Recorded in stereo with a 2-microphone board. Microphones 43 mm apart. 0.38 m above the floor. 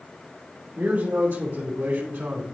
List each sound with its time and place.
0.8 s a man speaking: 60° right (ahead or behind), 3 m